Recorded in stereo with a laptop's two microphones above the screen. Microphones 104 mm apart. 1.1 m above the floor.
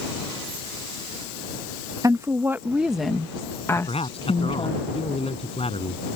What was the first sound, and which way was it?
A woman speaking, 35° right (ahead or behind).